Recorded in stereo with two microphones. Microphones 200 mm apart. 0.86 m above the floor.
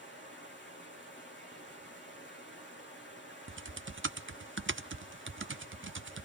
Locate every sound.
0.0 s running water: 70° left (ahead or behind), 6 m
3.5 s typing on a keyboard: 80° right, 0.6 m